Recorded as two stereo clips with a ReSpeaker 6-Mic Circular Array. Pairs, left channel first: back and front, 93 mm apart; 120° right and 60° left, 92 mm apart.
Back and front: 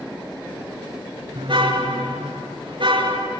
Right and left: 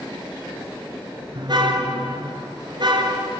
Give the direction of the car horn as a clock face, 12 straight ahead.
11 o'clock.